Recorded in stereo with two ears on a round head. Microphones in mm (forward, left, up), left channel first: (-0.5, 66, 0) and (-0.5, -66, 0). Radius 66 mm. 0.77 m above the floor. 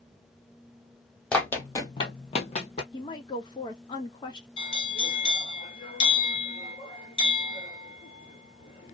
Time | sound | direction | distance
1.3 | running footsteps | 10° left (ahead or behind) | 1.1 m
2.9 | a woman speaking | 30° left (ahead or behind) | 0.8 m
4.6 | a bell | 35° left (ahead or behind) | 1.1 m